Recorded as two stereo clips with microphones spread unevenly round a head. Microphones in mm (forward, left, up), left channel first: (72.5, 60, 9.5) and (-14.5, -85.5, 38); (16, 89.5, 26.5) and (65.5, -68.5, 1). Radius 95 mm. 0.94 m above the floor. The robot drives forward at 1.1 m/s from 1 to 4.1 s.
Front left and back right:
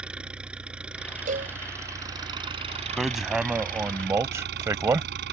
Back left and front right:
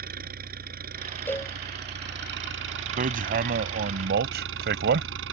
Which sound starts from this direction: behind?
A cowbell, at 1.3 s.